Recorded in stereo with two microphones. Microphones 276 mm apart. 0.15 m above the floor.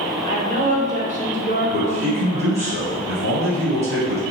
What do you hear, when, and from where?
0.2 s a woman speaking: 30° right (ahead or behind), 1.2 m
1.7 s a man speaking: 55° right (ahead or behind), 1.9 m